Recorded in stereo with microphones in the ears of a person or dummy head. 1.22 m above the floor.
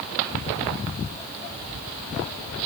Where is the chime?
No chime in this recording.